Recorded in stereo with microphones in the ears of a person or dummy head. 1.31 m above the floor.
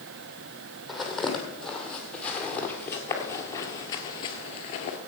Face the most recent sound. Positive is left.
turn(degrees=40)  # may be behind; listen again after turning